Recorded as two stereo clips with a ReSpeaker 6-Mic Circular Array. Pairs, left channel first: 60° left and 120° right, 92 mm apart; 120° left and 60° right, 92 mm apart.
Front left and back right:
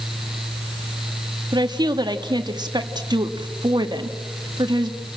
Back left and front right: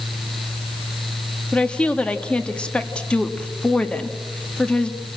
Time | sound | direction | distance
1.5 | a woman speaking | 160° right | 1.7 m